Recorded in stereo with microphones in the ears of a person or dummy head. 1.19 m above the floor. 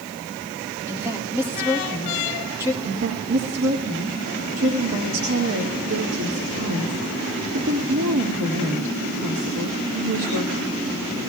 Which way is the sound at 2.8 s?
75° right (ahead or behind).